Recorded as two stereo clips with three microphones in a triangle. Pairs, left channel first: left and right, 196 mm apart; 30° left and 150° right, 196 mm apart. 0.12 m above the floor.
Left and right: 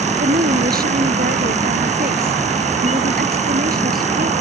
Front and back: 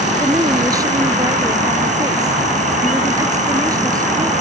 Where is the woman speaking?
80° right.